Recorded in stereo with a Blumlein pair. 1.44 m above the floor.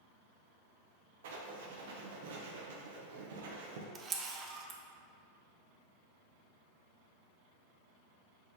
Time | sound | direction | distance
1.2 | writing | 55° right | 0.7 m
4.0 | a camera shutter | 20° right | 0.5 m